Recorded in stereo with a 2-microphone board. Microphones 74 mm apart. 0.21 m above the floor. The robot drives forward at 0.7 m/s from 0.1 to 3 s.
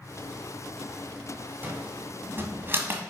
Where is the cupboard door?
25° right (ahead or behind), 1.5 m; by 3.0 s 30° right (ahead or behind), 1.3 m.